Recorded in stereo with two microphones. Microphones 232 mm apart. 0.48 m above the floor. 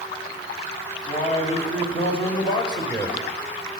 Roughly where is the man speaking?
Left.